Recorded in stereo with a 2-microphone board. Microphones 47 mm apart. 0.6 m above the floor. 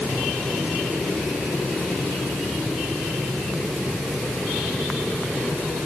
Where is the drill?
I don't hear a drill.